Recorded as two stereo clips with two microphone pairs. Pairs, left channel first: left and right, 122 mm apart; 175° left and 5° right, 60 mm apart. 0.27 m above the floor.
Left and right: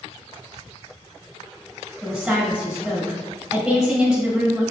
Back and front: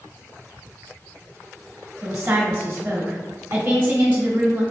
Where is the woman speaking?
5° right, 1.2 m.